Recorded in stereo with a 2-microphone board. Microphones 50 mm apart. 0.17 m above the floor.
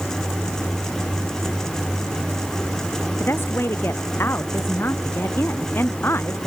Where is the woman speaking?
55° left (ahead or behind).